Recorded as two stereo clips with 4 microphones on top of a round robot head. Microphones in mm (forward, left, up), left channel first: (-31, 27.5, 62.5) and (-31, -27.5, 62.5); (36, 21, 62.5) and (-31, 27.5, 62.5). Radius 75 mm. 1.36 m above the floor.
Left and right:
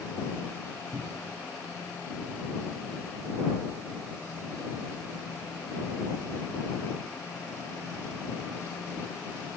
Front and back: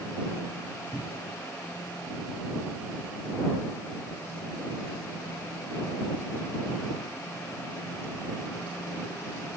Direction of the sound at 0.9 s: 75° right.